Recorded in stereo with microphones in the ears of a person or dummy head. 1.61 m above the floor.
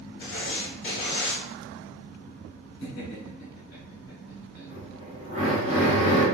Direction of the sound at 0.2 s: 60° left (ahead or behind).